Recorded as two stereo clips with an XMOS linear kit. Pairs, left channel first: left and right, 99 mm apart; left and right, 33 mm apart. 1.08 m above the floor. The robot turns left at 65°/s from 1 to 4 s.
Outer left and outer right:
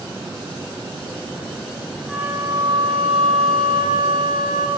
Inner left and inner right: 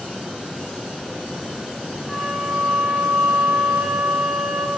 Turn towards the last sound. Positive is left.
turn(degrees=-130)